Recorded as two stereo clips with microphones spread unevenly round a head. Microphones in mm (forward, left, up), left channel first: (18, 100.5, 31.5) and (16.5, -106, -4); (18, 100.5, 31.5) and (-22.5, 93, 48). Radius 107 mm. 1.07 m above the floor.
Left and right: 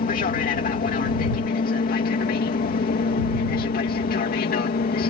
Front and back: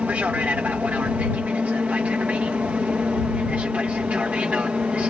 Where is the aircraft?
135° left; by 5.1 s 130° left.